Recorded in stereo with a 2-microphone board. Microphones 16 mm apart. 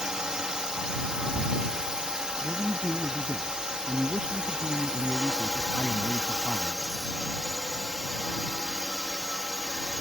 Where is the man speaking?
60° right (ahead or behind).